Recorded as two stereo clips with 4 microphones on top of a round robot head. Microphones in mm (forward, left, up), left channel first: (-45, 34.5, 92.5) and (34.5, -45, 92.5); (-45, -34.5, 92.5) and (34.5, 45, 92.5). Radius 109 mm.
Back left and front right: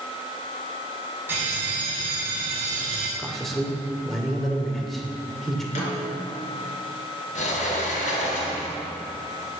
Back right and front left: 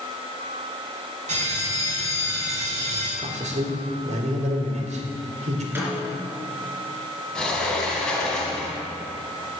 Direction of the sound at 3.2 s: 45° left.